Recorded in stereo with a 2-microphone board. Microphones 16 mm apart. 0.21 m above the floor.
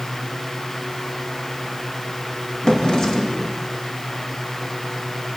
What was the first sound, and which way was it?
A drawer, 50° left (ahead or behind).